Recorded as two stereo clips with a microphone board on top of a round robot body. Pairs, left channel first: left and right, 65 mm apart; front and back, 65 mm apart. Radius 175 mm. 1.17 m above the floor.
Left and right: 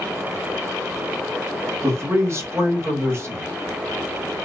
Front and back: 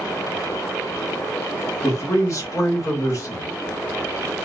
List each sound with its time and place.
1.8 s a man speaking: 40° right, 1.3 m